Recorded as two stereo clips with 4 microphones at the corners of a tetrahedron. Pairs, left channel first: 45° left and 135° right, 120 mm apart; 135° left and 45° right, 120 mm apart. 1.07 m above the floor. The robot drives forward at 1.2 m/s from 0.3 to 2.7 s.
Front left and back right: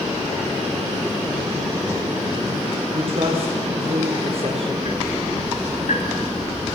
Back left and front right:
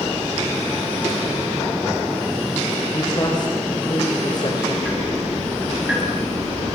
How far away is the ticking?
About 7.5 m.